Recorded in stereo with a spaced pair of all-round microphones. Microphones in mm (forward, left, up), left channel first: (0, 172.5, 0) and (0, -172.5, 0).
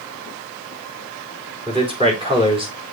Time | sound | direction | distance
1.7 | a man speaking | 15° right (ahead or behind) | 3.5 m